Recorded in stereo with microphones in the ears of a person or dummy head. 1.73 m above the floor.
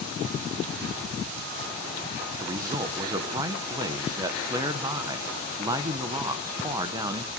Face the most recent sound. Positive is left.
turn(degrees=-25)  # may be behind; listen again after turning